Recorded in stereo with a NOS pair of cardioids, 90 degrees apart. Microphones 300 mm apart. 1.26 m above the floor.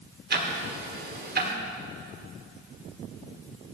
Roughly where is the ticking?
Ahead right.